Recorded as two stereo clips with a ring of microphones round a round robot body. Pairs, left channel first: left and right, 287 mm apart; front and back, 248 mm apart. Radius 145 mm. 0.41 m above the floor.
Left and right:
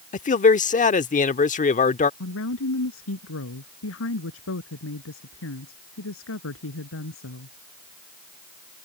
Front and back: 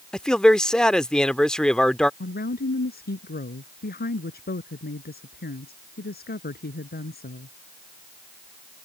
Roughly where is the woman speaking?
Ahead left.